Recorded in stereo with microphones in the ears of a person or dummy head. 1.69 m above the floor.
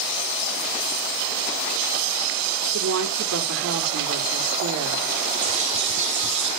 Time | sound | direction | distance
2.7 | a woman speaking | 80° right | 5.5 m
5.4 | a bird | 40° right (ahead or behind) | 6.5 m